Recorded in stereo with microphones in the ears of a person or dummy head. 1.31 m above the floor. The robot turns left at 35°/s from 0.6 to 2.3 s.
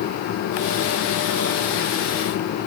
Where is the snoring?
No snoring in this recording.